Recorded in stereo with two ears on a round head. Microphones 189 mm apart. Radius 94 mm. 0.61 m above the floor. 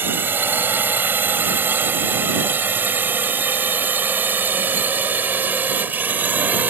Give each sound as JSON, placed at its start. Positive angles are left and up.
{"t": 0.0, "sound": "a drone", "side_deg": -10}